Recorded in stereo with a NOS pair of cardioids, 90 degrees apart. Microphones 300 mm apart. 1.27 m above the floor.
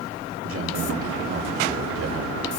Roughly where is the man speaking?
Ahead right.